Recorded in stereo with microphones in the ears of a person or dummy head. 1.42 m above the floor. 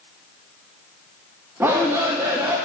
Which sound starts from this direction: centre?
A shout, at 1.6 s.